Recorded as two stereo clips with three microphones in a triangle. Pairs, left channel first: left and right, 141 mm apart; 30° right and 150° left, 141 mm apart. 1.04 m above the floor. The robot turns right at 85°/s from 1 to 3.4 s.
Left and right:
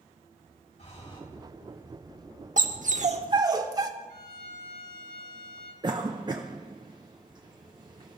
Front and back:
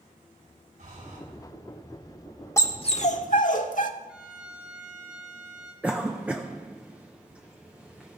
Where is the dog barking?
100° right, 1.1 m; by 3.9 s 30° right, 1.1 m.